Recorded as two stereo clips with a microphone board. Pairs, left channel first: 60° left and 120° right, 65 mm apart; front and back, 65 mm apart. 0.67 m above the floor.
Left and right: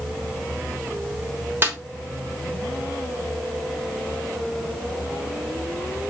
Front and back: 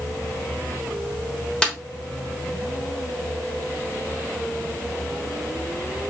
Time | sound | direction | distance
1.6 | a snare drum | 75° right | 1.1 m